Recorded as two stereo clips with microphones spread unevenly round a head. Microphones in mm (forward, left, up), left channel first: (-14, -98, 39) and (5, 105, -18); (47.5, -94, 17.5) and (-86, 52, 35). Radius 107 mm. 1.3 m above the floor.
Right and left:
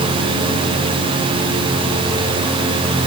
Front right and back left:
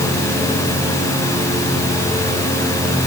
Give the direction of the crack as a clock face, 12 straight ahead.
I don't hear a crack.